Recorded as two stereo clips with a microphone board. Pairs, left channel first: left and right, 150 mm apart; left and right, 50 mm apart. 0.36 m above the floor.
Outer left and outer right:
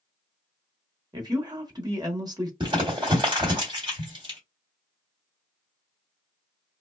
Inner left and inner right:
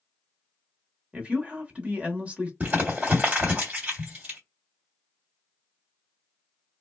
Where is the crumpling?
35° right (ahead or behind), 1.6 m.